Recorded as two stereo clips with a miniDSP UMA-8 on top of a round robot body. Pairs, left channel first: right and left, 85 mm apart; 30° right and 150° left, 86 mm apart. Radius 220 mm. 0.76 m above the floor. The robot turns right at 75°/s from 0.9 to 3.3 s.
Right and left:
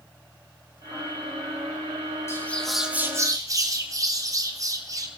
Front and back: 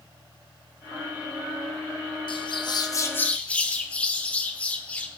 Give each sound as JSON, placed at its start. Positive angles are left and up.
{"t": 2.3, "sound": "a bird", "azimuth_deg": -30, "distance_m": 1.8}